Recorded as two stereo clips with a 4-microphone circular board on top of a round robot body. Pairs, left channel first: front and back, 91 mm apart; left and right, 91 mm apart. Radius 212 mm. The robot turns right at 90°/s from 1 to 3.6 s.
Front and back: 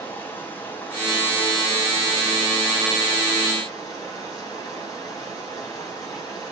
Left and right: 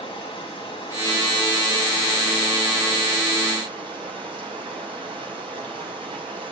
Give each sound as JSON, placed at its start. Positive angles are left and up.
{"t": 0.0, "sound": "running water", "azimuth_deg": 70, "distance_m": 5.0}